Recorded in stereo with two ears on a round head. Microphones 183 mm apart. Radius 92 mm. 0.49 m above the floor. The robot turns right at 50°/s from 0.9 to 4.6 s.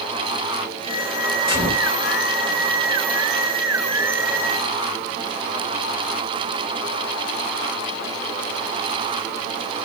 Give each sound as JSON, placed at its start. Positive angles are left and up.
{"t": 1.5, "sound": "a gunshot", "side_deg": 45, "distance_m": 2.5}